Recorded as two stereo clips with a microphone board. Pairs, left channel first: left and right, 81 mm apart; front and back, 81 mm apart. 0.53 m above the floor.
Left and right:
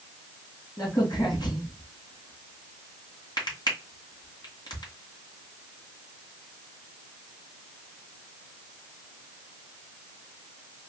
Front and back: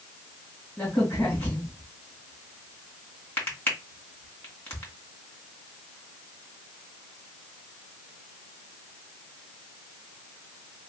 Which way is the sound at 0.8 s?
60° left.